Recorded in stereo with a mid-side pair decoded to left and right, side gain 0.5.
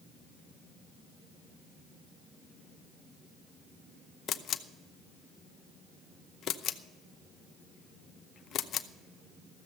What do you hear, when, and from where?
4.3 s a camera shutter: 60° left, 0.7 m